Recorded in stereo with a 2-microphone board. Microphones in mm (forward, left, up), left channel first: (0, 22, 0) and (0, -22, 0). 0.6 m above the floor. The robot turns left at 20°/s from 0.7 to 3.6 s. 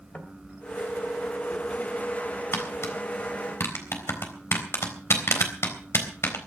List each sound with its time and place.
0.1 s knocking: 30° left (ahead or behind), 2.5 m
2.5 s tapping: 60° left (ahead or behind), 3.5 m; by 6.4 s 75° left (ahead or behind), 3.5 m